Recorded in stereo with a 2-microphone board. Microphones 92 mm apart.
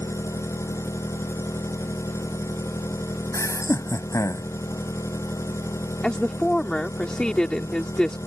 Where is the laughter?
35° left (ahead or behind).